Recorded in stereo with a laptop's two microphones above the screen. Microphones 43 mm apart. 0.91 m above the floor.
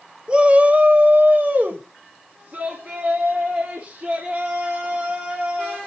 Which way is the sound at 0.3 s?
25° right (ahead or behind).